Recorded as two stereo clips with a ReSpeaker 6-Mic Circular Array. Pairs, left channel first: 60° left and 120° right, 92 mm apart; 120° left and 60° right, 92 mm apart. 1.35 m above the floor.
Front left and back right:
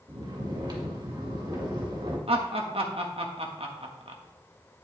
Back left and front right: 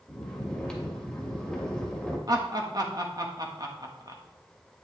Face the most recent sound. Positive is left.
turn(degrees=-110)